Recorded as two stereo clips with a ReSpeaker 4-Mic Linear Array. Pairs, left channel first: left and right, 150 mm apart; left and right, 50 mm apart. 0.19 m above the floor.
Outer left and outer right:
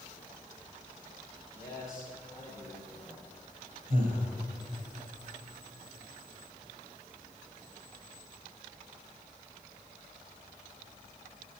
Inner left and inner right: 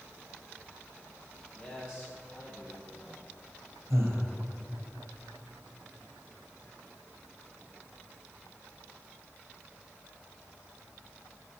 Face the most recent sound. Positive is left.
turn(degrees=-55)  # may be behind; listen again after turning